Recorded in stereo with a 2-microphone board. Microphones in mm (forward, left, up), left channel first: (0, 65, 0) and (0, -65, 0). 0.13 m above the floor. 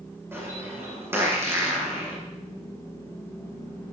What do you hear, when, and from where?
0.3 s a bird: 20° right (ahead or behind), 6.5 m